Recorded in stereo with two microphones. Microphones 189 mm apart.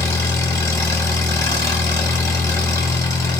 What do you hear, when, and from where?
0.0 s an engine running: 15° left (ahead or behind), 1.0 m